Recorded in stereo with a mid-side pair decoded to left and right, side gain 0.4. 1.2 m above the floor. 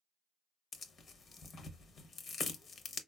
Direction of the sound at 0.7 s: 60° left.